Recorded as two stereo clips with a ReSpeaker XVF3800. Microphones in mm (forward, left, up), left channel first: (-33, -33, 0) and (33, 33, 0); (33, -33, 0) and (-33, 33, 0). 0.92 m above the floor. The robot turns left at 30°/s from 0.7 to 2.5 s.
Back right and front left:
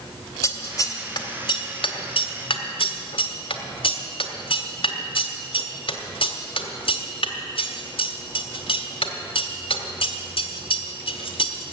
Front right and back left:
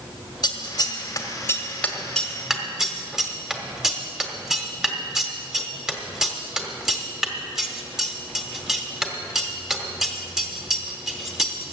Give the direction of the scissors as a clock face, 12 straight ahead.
3 o'clock.